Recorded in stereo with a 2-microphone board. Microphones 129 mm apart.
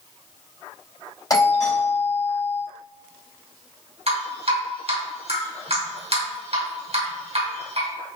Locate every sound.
1.3 s a doorbell: 30° left (ahead or behind), 3.5 m
4.1 s dripping: 55° right (ahead or behind), 4 m